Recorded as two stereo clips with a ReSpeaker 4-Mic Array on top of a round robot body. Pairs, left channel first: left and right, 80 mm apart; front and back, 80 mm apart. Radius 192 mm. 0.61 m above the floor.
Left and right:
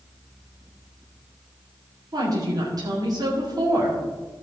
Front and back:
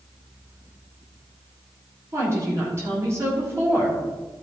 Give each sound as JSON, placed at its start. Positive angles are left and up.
{"t": 2.1, "sound": "a woman speaking", "azimuth_deg": -125, "distance_m": 3.0}